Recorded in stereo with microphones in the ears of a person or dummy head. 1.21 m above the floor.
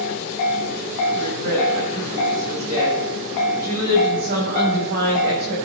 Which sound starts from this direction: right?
A woman speaking, at 1.1 s.